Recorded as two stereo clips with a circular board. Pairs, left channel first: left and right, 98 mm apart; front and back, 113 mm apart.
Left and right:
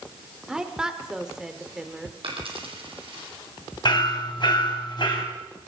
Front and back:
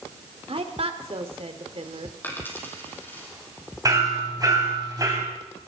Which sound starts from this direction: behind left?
Hammering, at 3.9 s.